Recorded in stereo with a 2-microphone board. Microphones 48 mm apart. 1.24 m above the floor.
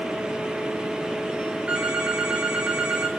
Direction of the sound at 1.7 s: 20° right (ahead or behind).